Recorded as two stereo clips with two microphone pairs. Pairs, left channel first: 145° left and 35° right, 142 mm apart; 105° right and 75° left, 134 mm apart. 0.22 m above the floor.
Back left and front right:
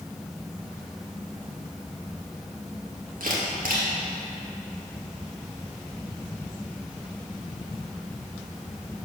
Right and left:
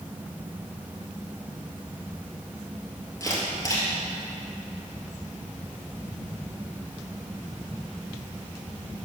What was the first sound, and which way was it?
A camera shutter, 45° right.